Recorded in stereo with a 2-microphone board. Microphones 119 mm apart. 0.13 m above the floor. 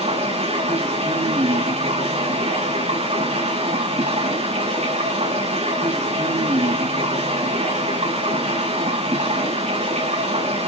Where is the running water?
85° right, 7 m.